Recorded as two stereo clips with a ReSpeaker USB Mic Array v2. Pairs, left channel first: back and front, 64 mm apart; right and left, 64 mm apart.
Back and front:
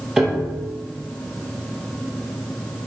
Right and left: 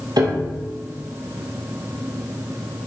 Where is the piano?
80° left, 3.5 m.